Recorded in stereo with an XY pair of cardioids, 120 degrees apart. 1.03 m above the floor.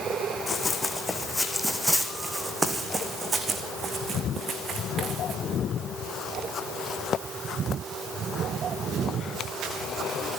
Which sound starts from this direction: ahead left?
Running footsteps, at 0.5 s.